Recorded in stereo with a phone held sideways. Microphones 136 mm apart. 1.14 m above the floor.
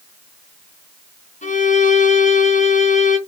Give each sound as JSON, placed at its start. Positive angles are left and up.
{"t": 1.4, "sound": "a violin", "side_deg": 65, "distance_m": 2.5}